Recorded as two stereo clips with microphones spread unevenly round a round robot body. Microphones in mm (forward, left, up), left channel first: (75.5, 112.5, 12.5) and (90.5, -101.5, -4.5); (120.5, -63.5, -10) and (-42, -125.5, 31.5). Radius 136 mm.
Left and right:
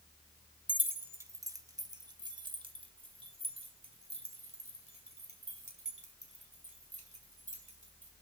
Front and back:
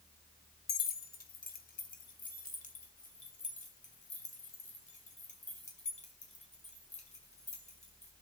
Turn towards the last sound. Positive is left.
turn(degrees=-30)